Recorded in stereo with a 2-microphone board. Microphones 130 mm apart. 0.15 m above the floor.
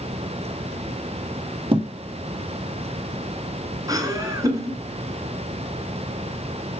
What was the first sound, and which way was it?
A thud, 40° right (ahead or behind).